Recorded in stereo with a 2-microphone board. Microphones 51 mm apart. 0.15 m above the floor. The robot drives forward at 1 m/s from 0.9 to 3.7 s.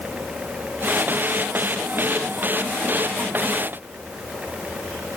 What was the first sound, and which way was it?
Only background noise.